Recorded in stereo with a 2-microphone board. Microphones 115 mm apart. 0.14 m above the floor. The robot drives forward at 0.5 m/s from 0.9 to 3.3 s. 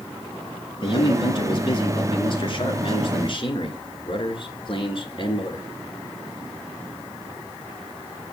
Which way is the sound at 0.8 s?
45° left (ahead or behind).